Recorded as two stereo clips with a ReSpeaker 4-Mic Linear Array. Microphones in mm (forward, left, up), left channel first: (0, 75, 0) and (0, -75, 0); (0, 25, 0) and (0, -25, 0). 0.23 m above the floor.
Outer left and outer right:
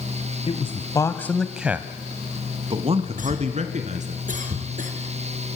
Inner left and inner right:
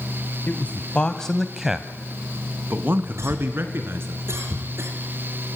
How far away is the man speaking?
About 1.3 m.